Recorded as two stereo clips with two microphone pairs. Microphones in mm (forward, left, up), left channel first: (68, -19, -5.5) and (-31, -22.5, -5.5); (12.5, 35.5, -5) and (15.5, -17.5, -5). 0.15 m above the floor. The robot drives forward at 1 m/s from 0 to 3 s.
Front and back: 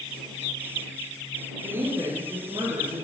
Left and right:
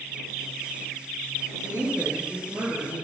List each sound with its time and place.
1.6 s a woman speaking: 115° right, 3 m; by 3.0 s 135° right, 4 m